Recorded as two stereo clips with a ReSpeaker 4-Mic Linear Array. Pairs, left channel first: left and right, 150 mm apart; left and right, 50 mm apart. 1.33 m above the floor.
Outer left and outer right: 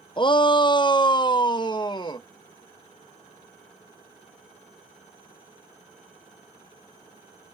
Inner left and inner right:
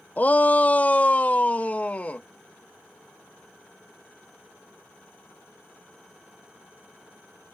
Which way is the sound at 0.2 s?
35° left (ahead or behind).